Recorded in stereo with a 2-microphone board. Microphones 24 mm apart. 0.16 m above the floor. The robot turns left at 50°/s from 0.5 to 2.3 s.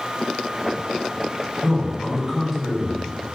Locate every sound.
1.6 s a man speaking: 130° right, 1.7 m; by 3.4 s 165° right, 1.7 m